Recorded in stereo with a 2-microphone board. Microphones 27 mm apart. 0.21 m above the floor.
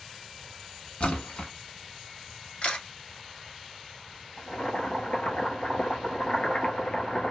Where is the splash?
60° left (ahead or behind), 1.0 m.